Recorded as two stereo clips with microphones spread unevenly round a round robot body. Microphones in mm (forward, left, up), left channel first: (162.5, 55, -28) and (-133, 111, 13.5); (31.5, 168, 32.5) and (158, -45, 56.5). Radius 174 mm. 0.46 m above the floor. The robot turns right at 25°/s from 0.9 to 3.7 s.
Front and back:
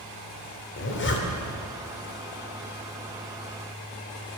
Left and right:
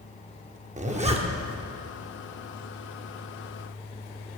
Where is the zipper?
5° right, 1.6 m; by 1.6 s 10° left, 1.6 m.